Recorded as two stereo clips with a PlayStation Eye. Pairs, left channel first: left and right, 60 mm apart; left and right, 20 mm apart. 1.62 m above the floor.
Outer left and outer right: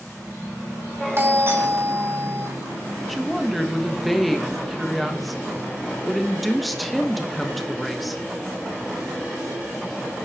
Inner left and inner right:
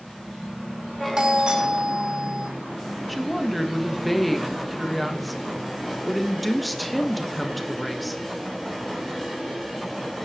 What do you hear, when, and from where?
1.2 s a doorbell: 45° right (ahead or behind), 2.5 m
3.1 s a woman speaking: centre (ahead or behind), 1.2 m